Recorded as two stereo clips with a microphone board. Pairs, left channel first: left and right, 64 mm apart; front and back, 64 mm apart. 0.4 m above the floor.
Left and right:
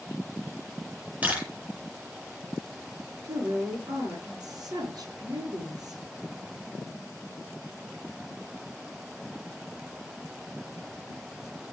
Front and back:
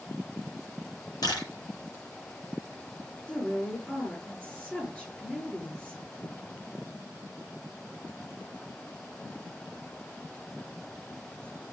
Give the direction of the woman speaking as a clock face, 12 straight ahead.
2 o'clock.